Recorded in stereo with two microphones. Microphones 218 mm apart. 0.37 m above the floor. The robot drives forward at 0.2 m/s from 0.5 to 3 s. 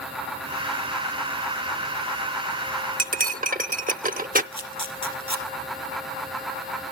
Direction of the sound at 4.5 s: 25° left (ahead or behind).